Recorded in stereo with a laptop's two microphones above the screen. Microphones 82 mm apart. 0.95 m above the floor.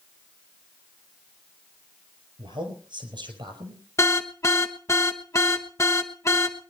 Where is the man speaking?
80° right, 6 m.